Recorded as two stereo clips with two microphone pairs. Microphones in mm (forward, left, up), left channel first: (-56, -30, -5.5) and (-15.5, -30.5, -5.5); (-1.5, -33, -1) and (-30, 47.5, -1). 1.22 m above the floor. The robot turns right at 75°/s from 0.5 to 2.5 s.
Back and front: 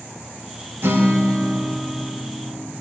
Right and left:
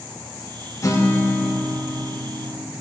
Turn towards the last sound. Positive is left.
turn(degrees=100)